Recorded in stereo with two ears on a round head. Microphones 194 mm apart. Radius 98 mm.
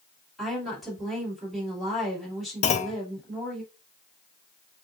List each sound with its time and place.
0.4 s a woman speaking: centre (ahead or behind), 2.5 m
2.6 s a clunk: 30° left (ahead or behind), 0.5 m